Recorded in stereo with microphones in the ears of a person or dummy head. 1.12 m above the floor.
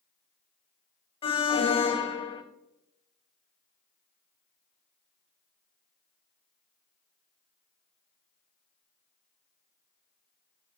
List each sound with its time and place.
1.2 s an alarm: 25° left (ahead or behind), 0.8 m